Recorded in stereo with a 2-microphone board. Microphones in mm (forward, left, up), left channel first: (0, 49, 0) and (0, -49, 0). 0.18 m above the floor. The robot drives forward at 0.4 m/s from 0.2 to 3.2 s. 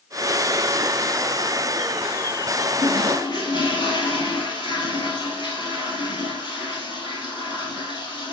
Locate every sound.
2.8 s a toilet flushing: 55° left (ahead or behind), 1.5 m; by 8.3 s 50° left (ahead or behind), 1.6 m